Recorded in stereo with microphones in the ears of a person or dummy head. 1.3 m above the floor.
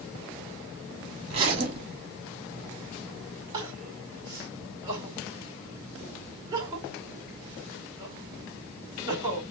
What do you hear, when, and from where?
1.3 s a zipper: 35° right (ahead or behind), 1.7 m
3.5 s crying: 20° right (ahead or behind), 1.9 m